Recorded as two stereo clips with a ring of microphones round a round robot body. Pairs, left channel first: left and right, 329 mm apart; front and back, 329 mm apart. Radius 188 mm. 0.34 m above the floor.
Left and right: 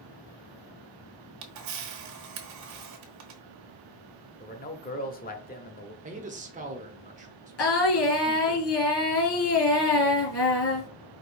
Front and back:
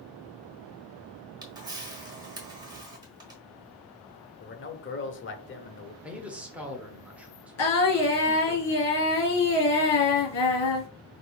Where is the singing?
40° left, 2.5 m.